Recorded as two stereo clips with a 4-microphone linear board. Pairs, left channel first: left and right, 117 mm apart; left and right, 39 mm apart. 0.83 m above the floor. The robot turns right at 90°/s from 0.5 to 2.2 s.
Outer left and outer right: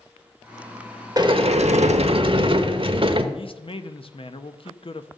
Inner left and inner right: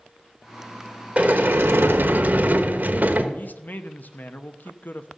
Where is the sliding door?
145° right, 1.0 m; by 3.2 s 50° right, 1.0 m.